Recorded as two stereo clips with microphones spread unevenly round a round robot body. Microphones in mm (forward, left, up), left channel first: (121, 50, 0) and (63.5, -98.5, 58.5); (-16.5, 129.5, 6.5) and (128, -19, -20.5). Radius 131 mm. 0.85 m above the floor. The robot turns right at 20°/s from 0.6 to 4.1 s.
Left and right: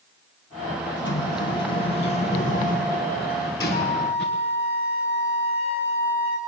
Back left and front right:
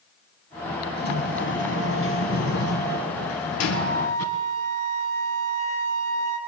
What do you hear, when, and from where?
1.0 s a sliding door: 95° left, 3 m; by 4.3 s 155° left, 3 m
3.7 s a flute: 110° left, 3.5 m; by 6.4 s 120° left, 3.5 m